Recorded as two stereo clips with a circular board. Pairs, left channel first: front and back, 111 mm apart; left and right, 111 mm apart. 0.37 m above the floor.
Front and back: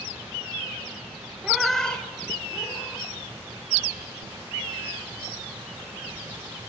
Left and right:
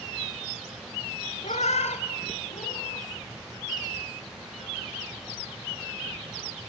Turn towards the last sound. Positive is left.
turn(degrees=70)